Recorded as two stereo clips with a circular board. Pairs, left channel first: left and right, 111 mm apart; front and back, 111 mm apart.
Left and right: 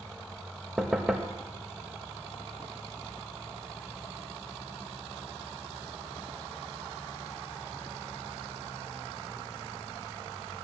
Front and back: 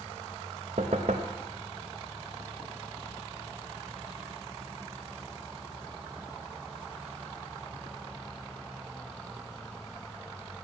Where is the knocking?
170° right, 1.0 m.